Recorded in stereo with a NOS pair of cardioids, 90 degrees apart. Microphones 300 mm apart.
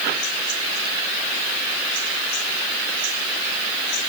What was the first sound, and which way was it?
Only background noise.